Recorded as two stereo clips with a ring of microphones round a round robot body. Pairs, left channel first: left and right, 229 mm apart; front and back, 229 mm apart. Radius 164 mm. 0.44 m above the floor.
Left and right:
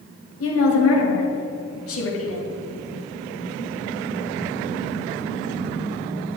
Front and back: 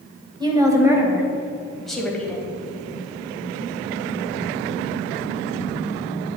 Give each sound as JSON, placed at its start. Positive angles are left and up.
{"t": 0.4, "sound": "a woman speaking", "azimuth_deg": 110, "distance_m": 2.5}